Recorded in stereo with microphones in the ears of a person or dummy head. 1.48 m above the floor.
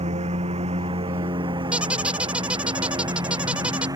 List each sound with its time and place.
0.0 s a lawn mower: 25° right (ahead or behind); by 4.0 s 15° right (ahead or behind)
1.7 s a squeak: 5° right (ahead or behind)